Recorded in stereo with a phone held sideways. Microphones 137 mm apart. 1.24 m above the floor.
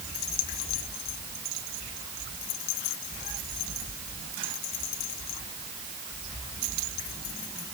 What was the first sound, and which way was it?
Only background noise.